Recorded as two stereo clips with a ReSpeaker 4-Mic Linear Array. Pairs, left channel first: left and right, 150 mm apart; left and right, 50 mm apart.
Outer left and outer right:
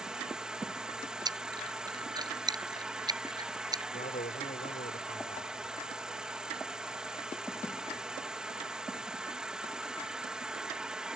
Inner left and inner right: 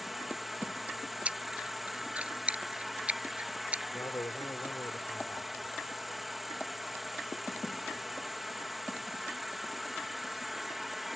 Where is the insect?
5° right (ahead or behind).